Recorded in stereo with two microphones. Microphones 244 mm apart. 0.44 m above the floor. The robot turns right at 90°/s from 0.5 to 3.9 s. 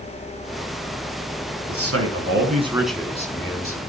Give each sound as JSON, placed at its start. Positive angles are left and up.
{"t": 1.7, "sound": "a man speaking", "azimuth_deg": -110, "distance_m": 5.0}